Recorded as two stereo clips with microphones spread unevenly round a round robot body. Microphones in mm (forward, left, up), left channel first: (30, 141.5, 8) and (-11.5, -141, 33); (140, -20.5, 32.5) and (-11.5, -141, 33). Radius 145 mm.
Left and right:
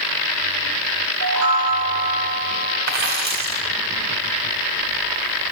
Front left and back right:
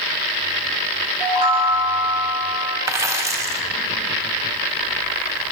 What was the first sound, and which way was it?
A chime, 70° right.